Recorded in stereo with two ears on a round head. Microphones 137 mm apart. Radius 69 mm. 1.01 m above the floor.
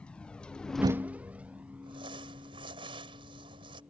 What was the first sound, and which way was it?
A vehicle, 10° left (ahead or behind).